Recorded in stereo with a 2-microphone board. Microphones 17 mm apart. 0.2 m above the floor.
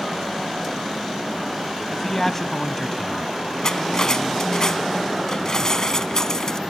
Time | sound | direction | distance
1.9 | a man speaking | 20° left (ahead or behind) | ?
3.6 | cutlery clinking | 35° left (ahead or behind) | ?